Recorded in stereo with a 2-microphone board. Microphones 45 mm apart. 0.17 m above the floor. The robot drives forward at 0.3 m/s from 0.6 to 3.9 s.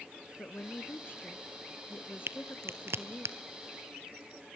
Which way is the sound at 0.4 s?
55° left (ahead or behind).